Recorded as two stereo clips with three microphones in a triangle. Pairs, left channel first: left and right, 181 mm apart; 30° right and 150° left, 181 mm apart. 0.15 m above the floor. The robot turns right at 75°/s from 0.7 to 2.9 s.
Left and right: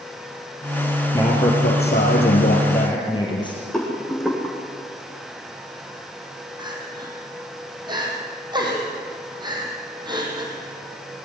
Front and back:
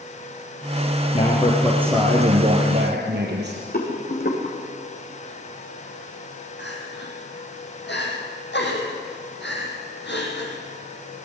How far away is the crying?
About 5 m.